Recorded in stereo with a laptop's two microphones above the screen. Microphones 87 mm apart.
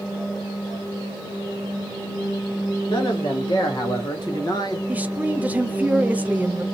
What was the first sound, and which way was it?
A man speaking, 70° left (ahead or behind).